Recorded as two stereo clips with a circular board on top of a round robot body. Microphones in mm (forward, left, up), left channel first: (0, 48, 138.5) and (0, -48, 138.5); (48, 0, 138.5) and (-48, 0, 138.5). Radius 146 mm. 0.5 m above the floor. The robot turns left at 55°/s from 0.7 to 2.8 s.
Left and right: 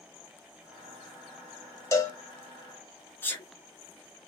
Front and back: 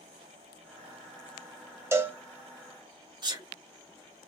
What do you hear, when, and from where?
1.9 s a cowbell: 130° left, 1.2 m; by 2.2 s 115° left, 1.2 m
3.2 s a sneeze: 155° left, 1.5 m